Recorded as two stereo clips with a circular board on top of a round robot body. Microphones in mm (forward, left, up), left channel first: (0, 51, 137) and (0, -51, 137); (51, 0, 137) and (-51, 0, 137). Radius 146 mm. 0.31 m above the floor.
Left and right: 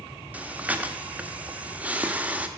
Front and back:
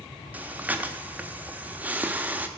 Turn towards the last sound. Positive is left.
turn(degrees=-135)